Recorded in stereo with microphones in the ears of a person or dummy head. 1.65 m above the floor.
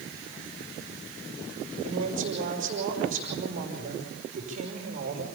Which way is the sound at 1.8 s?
40° right (ahead or behind).